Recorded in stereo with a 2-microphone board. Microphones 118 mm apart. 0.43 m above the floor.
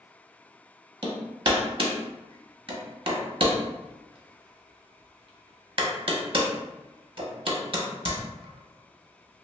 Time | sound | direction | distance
1.0 | hammering | 50° right (ahead or behind) | 0.6 m